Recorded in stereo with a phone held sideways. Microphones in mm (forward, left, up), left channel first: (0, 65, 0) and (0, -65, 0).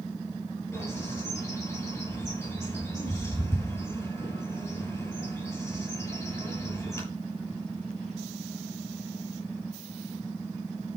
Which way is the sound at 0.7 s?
20° left (ahead or behind).